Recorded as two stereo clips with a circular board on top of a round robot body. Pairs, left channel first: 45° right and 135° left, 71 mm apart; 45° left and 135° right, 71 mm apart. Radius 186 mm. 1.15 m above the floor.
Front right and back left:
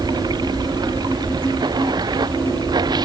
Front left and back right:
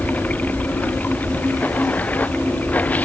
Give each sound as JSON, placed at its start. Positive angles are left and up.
{"t": 0.0, "sound": "running water", "azimuth_deg": 115}